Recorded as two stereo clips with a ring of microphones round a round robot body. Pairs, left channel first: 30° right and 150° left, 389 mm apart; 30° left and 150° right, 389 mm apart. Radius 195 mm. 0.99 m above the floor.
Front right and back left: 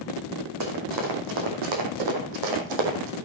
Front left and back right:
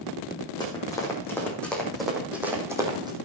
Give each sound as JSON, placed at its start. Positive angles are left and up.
{"t": 0.6, "sound": "running footsteps", "azimuth_deg": 110, "distance_m": 3.5}